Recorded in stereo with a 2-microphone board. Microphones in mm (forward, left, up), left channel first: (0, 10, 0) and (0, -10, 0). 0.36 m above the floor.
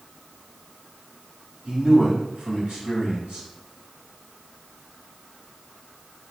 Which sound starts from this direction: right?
A man speaking, at 1.6 s.